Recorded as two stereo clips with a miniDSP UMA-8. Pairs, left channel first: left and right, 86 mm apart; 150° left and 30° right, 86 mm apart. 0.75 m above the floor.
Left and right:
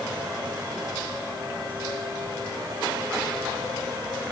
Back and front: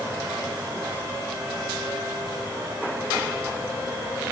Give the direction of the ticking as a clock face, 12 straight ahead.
No ticking in this recording.